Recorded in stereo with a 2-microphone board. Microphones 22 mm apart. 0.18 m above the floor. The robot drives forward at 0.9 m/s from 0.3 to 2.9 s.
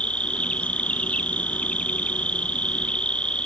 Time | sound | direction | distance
0.0 | an insect | 65° left (ahead or behind) | ?